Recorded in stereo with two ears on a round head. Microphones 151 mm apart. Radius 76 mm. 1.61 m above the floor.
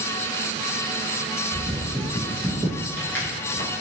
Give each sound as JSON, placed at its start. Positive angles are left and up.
{"t": 1.5, "sound": "footsteps", "side_deg": -20, "distance_m": 1.6}